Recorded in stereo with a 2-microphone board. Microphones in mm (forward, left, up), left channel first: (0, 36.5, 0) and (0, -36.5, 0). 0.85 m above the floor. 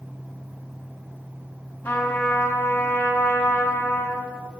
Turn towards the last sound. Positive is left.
turn(degrees=25)  # may be behind; listen again after turning